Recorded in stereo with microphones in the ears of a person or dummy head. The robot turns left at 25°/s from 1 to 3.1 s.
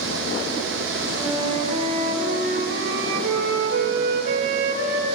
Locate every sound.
1.1 s a flute: 15° right, 3 m; by 5.2 s 65° right, 3 m